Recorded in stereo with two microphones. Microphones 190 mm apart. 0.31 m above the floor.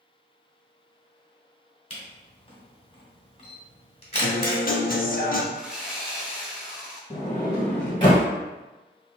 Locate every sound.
1.9 s a camera shutter: 30° left (ahead or behind), 1.4 m
4.2 s a guitar: 50° left (ahead or behind), 0.5 m
5.5 s sawing: 5° right (ahead or behind), 0.8 m
7.1 s a sliding door: 25° left (ahead or behind), 1.6 m